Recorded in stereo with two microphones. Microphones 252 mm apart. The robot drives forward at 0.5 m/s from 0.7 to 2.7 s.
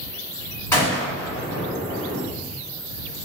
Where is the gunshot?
10° left (ahead or behind), 1.7 m; by 2.2 s 5° left (ahead or behind), 2.5 m.